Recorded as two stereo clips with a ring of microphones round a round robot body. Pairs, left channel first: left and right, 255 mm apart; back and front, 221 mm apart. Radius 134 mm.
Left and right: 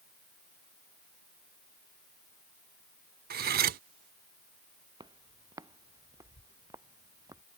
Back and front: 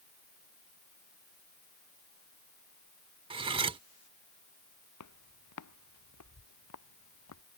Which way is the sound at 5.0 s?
165° right.